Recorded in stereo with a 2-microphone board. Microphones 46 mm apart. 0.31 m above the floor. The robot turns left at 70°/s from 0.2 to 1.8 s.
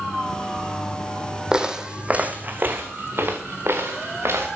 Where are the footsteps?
20° right (ahead or behind), 0.7 m; by 4.5 s 65° right (ahead or behind), 2.5 m.